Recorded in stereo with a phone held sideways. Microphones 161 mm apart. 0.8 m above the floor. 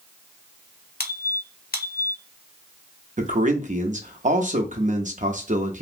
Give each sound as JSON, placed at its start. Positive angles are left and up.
{"t": 1.0, "sound": "a squeak", "side_deg": 65, "distance_m": 0.6}
{"t": 3.2, "sound": "a man speaking", "side_deg": -50, "distance_m": 0.6}